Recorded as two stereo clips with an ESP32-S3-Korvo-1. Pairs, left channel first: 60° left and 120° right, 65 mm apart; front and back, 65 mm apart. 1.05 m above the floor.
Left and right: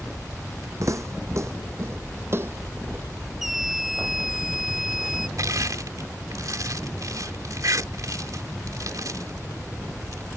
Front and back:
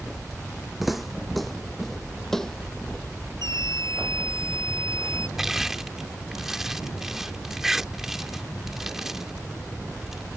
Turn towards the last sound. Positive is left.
turn(degrees=-100)